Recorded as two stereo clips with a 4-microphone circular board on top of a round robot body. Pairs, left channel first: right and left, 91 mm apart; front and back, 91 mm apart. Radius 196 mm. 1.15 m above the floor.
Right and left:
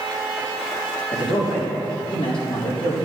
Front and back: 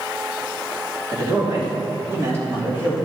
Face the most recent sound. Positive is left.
turn(degrees=-110)